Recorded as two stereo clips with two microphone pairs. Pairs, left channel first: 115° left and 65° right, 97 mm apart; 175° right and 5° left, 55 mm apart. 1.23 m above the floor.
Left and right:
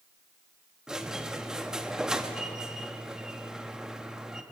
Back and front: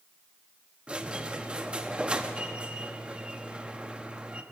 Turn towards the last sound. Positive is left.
turn(degrees=5)